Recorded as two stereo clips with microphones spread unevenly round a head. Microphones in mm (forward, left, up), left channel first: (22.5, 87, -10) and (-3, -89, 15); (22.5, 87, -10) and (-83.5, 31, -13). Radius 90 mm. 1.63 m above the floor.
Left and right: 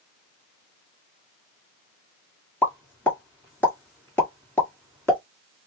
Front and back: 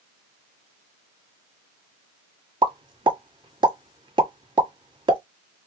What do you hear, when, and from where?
2.6 s a pop: 165° left, 1.6 m